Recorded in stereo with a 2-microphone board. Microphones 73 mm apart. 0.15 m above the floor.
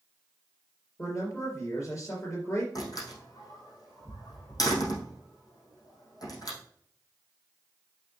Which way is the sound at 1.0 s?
45° left (ahead or behind).